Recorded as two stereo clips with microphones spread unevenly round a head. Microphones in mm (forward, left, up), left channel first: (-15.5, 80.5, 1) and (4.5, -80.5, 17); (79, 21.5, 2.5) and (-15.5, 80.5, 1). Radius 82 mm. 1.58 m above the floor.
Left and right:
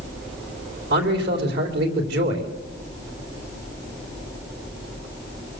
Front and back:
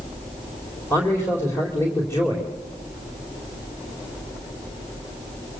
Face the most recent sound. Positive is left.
turn(degrees=-110)